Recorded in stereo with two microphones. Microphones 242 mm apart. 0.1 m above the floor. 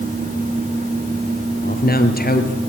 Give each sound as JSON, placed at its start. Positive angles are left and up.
{"t": 1.6, "sound": "a man speaking", "side_deg": 40, "distance_m": 2.5}